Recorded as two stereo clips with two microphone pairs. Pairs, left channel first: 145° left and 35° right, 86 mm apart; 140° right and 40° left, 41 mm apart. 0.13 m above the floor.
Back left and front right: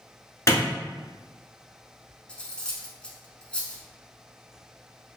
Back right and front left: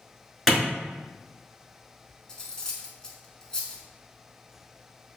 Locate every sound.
0.5 s a clap: 125° left, 1.2 m
2.3 s cutlery clinking: 170° right, 0.6 m